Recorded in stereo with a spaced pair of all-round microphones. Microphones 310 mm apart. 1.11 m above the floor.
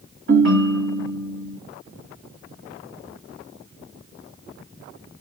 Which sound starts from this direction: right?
A ringtone, at 0.3 s.